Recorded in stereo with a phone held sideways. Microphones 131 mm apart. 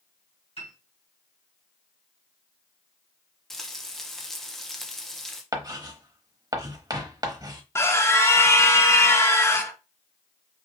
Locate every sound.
0.6 s a piano: 55° left (ahead or behind), 2 m
3.5 s frying: 5° left (ahead or behind), 0.8 m
5.5 s writing: 30° right (ahead or behind), 0.9 m
7.8 s a scream: 20° left (ahead or behind), 0.6 m